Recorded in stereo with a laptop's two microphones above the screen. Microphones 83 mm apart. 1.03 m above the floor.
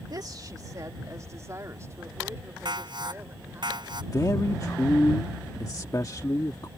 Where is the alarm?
60° right (ahead or behind).